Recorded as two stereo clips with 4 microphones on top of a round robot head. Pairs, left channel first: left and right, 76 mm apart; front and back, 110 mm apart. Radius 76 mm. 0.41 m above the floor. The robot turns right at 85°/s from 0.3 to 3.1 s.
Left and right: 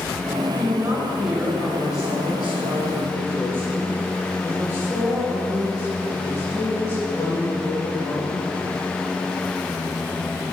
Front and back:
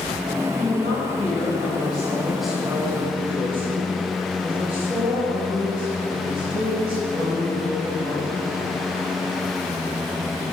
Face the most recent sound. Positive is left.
turn(degrees=150)